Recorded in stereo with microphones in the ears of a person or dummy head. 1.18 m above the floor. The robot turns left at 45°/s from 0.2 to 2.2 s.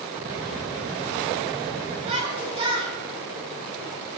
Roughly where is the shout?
Right.